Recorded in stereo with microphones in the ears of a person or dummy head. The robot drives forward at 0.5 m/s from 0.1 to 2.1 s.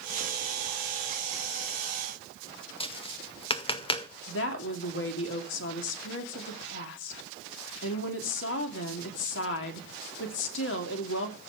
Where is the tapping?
30° left (ahead or behind), 0.7 m.